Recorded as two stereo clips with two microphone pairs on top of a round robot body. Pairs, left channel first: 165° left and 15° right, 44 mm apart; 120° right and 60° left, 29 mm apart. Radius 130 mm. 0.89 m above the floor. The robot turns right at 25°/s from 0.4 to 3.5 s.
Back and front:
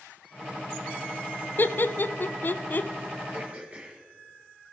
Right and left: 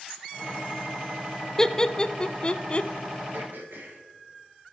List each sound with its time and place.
1.6 s laughter: 160° left, 0.5 m; by 2.9 s 165° right, 0.5 m
3.3 s throat clearing: 40° left, 2.5 m; by 4.0 s 45° left, 2.5 m